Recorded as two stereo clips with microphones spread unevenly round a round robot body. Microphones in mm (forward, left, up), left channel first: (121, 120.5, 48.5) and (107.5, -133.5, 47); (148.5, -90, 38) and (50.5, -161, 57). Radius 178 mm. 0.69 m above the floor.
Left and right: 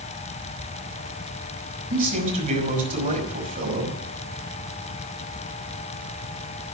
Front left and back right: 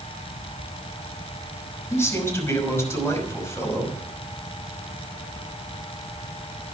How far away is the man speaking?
About 5.5 m.